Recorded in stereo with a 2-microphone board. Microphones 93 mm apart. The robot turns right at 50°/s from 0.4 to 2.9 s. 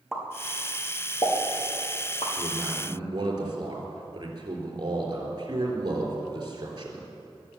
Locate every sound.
0.1 s a pop: 5° right (ahead or behind), 4.5 m; by 2.3 s 90° left, 4.5 m
2.4 s a man speaking: 20° right (ahead or behind), 4 m; by 7.1 s 45° right (ahead or behind), 4 m